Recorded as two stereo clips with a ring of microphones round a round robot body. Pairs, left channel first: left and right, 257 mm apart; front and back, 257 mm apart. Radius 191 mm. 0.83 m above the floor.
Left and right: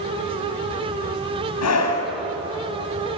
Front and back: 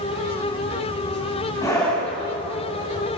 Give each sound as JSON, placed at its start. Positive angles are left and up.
{"t": 1.6, "sound": "a scream", "azimuth_deg": 80, "distance_m": 7.5}